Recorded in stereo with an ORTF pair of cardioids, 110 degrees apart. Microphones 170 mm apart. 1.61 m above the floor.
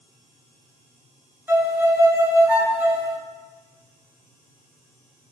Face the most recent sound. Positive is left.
turn(degrees=-10)